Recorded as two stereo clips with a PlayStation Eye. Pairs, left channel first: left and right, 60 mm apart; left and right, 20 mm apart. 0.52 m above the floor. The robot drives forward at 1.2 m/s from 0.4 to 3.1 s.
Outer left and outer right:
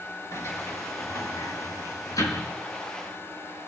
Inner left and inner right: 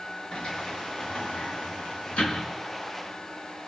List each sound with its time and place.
0.3 s a sliding door: 55° left (ahead or behind), 5.5 m; by 2.5 s 80° left, 4.5 m